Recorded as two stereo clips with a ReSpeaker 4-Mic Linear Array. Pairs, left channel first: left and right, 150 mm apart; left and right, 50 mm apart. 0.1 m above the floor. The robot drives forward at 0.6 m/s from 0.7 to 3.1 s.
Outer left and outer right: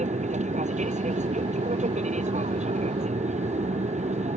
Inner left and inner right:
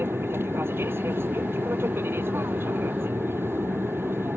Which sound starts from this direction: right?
An aircraft, at 0.0 s.